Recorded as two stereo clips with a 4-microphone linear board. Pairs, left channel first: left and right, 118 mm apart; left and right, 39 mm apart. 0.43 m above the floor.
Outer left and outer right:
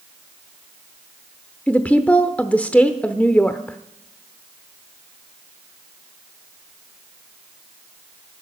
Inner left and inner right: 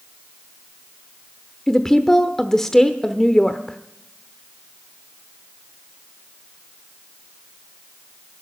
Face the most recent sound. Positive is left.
turn(degrees=10)  # may be behind; listen again after turning